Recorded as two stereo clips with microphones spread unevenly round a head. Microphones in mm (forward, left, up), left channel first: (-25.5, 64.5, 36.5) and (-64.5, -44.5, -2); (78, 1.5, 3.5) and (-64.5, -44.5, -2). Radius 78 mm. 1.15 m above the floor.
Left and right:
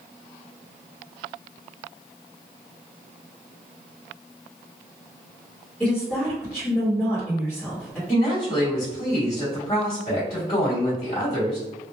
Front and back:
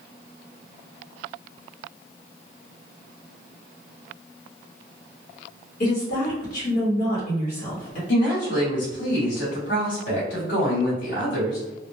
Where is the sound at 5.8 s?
15° right, 1.0 m.